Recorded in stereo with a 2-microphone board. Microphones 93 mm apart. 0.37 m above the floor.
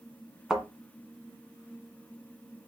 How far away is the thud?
About 1.7 m.